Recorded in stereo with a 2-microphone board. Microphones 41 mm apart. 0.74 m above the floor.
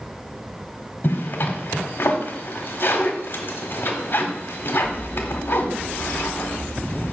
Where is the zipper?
55° left (ahead or behind), 1.5 m.